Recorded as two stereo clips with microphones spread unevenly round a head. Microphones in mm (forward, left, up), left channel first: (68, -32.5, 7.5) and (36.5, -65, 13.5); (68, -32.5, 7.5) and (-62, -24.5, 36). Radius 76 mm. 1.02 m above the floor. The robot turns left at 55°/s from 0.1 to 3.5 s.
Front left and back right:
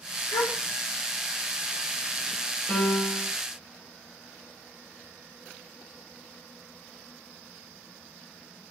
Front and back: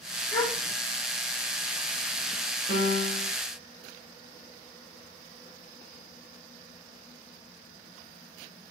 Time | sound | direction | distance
0.3 | a gasp | 75° left | 2 m
2.7 | a piano | 5° right | 5.5 m